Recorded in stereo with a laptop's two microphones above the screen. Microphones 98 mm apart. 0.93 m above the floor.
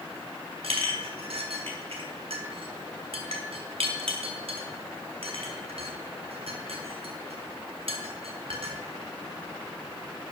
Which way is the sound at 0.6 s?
75° right (ahead or behind).